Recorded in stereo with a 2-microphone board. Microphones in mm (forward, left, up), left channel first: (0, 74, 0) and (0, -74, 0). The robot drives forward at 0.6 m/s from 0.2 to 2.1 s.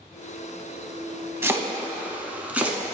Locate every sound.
1.4 s chopping: 15° right (ahead or behind), 0.5 m; by 2.8 s 10° right (ahead or behind), 0.8 m